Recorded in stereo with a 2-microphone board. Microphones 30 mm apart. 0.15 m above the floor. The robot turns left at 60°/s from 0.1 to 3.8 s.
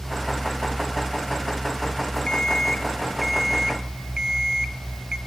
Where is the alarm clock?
50° left, 0.7 m; by 5.2 s 40° right, 0.7 m.